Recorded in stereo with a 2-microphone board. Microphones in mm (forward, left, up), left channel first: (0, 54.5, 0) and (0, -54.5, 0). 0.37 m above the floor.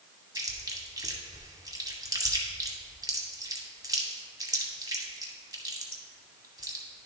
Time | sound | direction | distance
0.3 | chewing | 35° right (ahead or behind) | 1.1 m